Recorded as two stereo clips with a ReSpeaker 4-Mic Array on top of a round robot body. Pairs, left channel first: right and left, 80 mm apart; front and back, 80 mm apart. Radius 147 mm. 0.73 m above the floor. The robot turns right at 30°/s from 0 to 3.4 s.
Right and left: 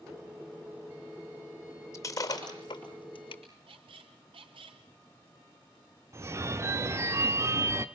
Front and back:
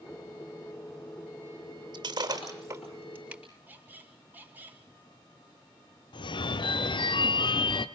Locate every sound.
1.9 s breaking glass: 145° right, 6 m; by 3.4 s 100° right, 6 m
3.7 s a squeak: 110° left, 2 m
6.1 s a phone ringing: 30° left, 1.1 m